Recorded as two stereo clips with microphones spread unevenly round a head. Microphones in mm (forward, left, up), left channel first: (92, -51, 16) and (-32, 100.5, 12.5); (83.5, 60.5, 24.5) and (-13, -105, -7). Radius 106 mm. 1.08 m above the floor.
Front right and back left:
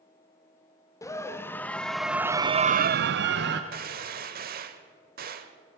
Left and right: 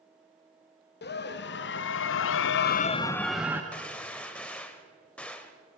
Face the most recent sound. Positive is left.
turn(degrees=130)